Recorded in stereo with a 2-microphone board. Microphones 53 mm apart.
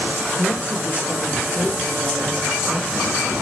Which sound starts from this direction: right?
A woman speaking, at 0.4 s.